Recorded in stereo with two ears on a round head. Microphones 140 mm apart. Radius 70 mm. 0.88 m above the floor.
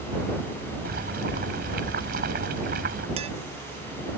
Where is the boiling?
60° right (ahead or behind).